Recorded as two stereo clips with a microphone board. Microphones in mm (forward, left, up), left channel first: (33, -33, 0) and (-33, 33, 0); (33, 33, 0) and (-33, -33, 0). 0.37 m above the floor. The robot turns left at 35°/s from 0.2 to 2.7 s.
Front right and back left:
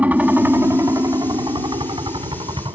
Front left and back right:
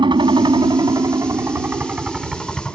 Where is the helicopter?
155° right; by 2.8 s 125° left.